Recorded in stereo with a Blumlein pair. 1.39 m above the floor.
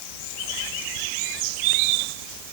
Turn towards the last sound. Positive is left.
No sound to turn to.